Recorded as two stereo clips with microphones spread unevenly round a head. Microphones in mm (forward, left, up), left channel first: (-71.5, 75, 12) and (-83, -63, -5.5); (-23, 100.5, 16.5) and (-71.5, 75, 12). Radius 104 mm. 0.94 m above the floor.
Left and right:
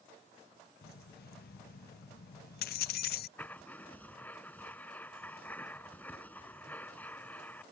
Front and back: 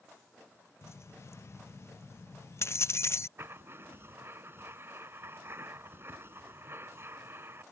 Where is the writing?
160° left.